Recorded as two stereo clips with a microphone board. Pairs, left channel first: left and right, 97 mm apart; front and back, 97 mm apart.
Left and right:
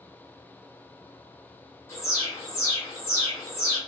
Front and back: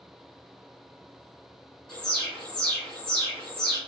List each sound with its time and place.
1.9 s an alarm: 75° left, 2.0 m